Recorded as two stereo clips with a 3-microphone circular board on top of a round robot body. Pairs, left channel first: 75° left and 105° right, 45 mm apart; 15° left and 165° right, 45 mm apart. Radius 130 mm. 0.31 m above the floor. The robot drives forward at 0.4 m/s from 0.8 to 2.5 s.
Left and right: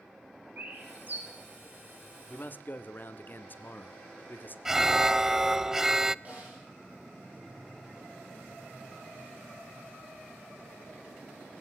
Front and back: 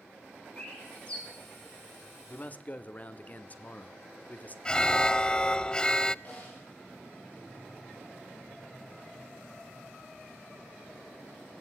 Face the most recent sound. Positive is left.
turn(degrees=-45)